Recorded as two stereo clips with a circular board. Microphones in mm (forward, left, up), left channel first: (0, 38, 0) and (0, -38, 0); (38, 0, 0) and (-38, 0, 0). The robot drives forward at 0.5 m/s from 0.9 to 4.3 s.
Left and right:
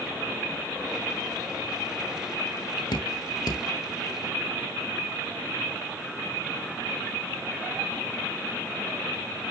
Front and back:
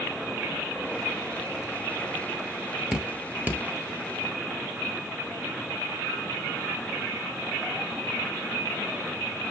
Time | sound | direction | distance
2.9 | dripping | 100° left | 1.1 m